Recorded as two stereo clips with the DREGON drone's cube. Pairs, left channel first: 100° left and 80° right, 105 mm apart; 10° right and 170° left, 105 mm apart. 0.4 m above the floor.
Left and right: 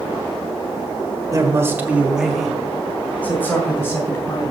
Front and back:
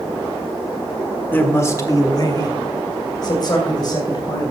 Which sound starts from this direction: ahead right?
A man speaking, at 1.3 s.